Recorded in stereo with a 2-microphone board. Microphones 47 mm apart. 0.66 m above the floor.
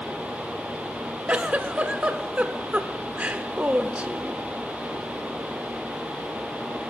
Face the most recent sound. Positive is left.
turn(degrees=-30)  # may be behind; listen again after turning